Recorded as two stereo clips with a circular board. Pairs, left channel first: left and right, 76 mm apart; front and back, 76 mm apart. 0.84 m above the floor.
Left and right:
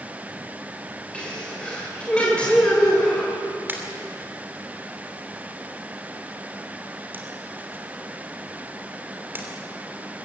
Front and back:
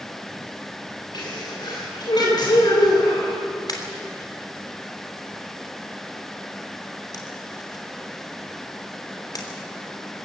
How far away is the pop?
About 3 m.